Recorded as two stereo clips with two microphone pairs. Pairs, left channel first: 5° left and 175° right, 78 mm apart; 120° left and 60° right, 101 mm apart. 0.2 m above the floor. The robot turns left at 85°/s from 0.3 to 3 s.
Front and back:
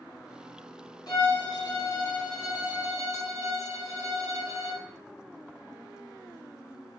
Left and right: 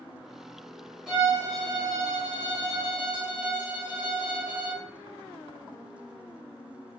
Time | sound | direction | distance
1.1 | a violin | 25° left | 1.3 m